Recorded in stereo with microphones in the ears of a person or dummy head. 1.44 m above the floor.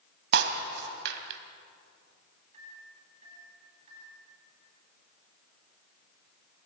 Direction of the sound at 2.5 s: 40° right (ahead or behind).